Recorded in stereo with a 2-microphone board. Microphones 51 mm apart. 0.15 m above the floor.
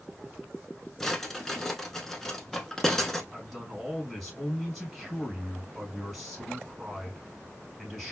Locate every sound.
1.0 s a drawer: 10° left (ahead or behind), 0.7 m
3.3 s a man speaking: 10° right (ahead or behind), 2.5 m